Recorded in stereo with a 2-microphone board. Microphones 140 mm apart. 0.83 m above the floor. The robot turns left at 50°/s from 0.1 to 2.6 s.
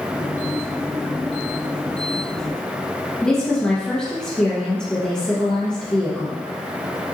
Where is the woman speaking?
5° left (ahead or behind), 0.7 m.